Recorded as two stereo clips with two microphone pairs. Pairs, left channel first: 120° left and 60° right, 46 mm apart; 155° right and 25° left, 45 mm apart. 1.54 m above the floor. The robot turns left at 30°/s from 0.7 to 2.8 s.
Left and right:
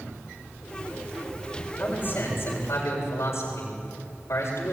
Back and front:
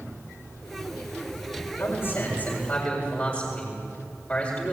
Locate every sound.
1.8 s a man speaking: 170° left, 7.5 m; by 4.7 s 140° left, 7.5 m